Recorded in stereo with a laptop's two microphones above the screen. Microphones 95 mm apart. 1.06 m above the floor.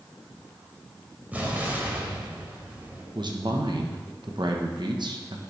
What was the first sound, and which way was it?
An explosion, 20° right (ahead or behind).